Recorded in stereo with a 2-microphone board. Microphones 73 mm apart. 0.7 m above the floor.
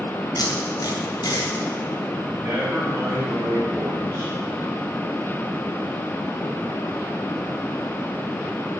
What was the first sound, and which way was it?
Tape being pulled, 65° left (ahead or behind).